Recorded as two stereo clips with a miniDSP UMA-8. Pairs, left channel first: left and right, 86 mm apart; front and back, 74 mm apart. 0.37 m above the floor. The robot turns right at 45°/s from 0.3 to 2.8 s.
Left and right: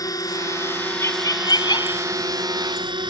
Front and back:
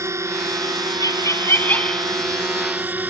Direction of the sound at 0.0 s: 135° left.